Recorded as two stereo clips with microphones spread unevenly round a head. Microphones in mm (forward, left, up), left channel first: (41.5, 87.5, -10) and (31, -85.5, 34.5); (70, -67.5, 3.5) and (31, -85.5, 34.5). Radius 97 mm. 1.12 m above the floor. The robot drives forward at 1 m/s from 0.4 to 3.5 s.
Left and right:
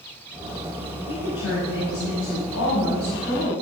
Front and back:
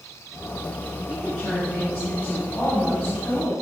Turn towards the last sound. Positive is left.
turn(degrees=110)